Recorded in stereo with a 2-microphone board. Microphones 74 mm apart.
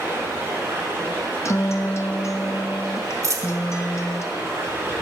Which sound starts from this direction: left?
A guitar, at 1.4 s.